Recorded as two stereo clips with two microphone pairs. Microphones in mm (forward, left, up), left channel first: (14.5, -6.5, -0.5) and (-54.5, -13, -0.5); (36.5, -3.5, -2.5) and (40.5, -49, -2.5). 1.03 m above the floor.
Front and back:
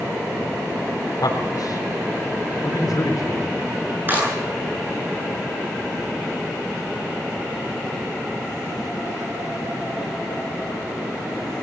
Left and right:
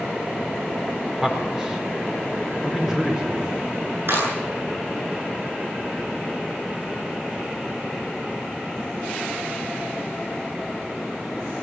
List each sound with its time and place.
1.2 s a man speaking: 10° right, 4 m
4.1 s a clap: 115° right, 10 m